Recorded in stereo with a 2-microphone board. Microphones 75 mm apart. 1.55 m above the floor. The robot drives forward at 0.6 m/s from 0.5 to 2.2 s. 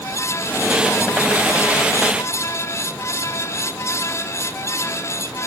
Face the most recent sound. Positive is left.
No sound to turn to.